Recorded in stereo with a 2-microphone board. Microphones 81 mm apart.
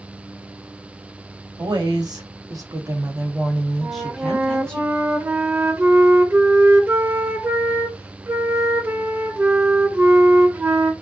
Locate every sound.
1.6 s a woman speaking: 60° right (ahead or behind), 1.1 m; by 4.8 s 15° left (ahead or behind), 1.2 m
3.8 s a flute: 25° right (ahead or behind), 0.6 m